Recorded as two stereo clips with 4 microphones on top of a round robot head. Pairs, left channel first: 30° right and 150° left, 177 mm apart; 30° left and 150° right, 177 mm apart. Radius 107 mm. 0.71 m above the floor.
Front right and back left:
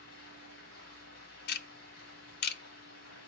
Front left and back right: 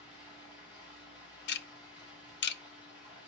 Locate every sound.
0.0 s running water: 30° right, 7.5 m
1.5 s ticking: 5° left, 0.5 m